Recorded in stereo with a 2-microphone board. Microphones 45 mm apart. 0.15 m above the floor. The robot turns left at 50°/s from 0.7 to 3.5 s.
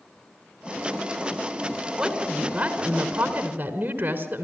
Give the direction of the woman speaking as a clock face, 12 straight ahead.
1 o'clock.